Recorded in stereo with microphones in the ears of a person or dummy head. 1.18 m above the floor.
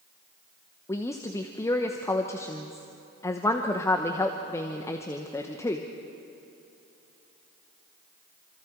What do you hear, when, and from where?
0.9 s a woman speaking: 15° left (ahead or behind), 1.0 m